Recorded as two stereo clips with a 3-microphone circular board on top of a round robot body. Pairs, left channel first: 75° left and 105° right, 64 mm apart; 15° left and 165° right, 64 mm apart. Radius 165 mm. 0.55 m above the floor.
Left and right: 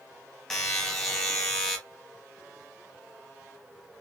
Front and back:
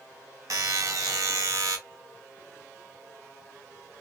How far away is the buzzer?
About 0.7 m.